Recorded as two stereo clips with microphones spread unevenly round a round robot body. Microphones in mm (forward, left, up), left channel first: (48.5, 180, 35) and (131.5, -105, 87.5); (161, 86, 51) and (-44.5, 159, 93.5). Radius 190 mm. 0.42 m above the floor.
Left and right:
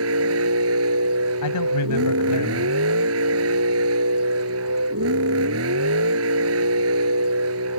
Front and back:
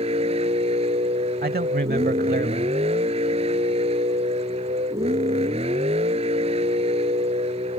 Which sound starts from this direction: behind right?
A vehicle, at 0.0 s.